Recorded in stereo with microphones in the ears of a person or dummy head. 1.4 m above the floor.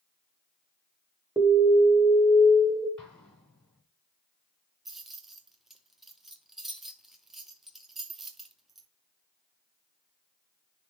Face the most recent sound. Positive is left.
turn(degrees=-5)  # may be behind; listen again after turning